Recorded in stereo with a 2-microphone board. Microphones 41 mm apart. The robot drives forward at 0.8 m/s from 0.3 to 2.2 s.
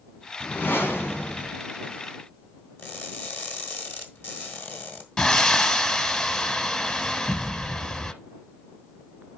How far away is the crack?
I don't hear a crack.